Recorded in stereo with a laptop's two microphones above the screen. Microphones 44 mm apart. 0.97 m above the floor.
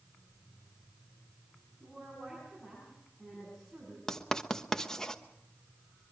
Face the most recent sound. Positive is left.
turn(degrees=15)  # may be behind; listen again after turning